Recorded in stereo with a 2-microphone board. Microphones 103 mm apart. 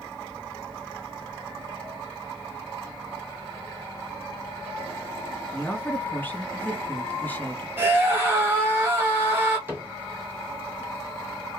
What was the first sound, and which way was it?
A woman speaking, 20° left (ahead or behind).